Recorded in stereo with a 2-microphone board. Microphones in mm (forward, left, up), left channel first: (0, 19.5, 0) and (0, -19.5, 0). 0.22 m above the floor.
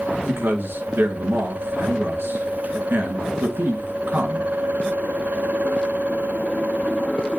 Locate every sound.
0.2 s a man speaking: 65° right (ahead or behind), 3 m